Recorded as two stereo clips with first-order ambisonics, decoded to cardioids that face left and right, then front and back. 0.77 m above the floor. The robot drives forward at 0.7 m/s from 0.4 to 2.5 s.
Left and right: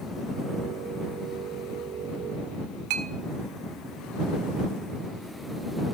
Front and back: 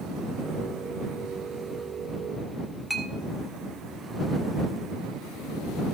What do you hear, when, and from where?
2.9 s a clink: 90° right, 1.1 m